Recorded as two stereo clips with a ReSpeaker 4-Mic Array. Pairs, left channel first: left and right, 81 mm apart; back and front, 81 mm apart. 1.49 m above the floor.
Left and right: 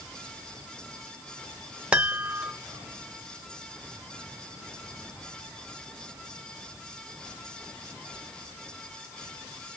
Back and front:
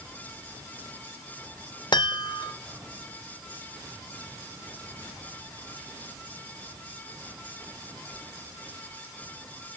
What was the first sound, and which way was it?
A chime, 165° right.